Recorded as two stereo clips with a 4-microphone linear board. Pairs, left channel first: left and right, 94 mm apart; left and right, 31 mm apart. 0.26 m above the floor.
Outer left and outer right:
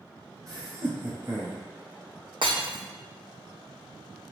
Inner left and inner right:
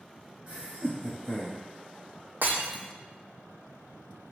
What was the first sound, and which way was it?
Laughter, 40° right (ahead or behind).